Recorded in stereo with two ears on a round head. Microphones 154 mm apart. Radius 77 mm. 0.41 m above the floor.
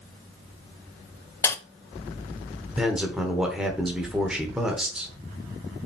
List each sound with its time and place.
1.4 s a dropped coin: 15° left (ahead or behind), 0.6 m
2.8 s a man speaking: 5° right (ahead or behind), 1.3 m